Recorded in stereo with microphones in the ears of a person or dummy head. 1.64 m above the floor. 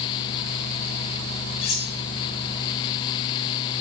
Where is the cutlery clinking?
30° left (ahead or behind), 0.9 m.